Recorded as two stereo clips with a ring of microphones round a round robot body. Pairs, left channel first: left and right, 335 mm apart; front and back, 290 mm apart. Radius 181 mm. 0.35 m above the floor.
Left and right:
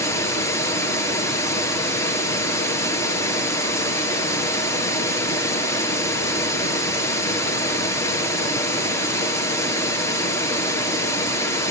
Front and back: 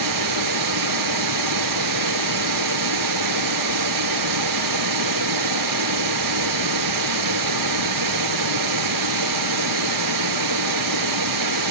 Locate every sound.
0.0 s running water: 175° left, 1.7 m